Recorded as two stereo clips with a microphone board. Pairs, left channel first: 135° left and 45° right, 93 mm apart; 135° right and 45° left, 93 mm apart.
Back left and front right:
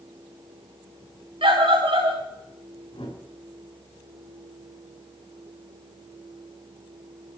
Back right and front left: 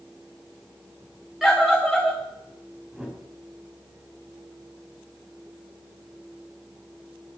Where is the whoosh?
130° left, 4 m.